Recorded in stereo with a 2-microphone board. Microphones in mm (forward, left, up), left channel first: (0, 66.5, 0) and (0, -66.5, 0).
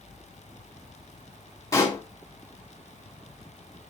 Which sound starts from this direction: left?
A pop, at 1.7 s.